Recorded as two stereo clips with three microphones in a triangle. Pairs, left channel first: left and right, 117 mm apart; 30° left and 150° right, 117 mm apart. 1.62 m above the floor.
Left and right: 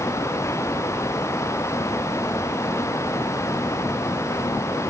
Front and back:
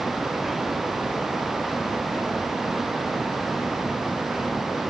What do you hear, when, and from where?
Only background noise.